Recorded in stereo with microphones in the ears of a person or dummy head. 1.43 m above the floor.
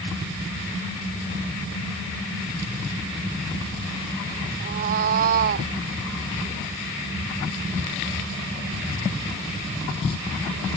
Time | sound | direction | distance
4.6 | a cat meowing | 40° right (ahead or behind) | ?